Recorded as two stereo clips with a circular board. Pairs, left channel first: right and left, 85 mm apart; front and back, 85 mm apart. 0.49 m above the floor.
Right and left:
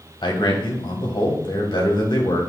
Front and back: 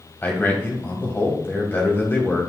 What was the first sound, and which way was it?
A man speaking, 65° right.